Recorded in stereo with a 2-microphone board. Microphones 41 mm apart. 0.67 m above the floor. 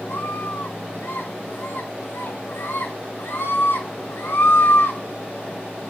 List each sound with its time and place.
0.1 s a scream: 75° left (ahead or behind), 8.5 m